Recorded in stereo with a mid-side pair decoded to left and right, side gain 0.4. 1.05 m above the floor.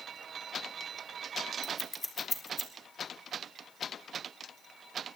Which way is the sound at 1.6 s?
25° left.